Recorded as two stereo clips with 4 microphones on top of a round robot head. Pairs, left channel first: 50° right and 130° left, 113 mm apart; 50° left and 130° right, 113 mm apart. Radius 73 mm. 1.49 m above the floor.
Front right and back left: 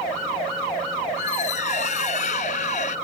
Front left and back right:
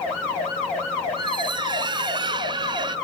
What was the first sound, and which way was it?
A squeak, 80° right.